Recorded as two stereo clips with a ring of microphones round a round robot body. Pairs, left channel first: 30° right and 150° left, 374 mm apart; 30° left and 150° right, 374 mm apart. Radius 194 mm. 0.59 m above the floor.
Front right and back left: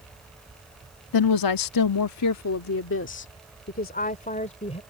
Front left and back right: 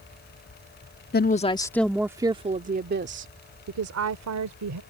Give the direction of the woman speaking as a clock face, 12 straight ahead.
1 o'clock.